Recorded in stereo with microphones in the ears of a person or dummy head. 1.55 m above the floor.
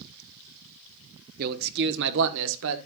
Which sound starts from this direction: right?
A man speaking, at 1.4 s.